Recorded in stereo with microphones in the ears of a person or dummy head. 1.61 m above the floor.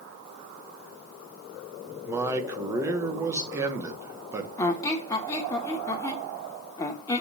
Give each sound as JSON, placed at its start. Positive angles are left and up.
{"t": 2.0, "sound": "a man speaking", "side_deg": -20, "distance_m": 1.1}
{"t": 4.6, "sound": "a squeak", "side_deg": 20, "distance_m": 0.9}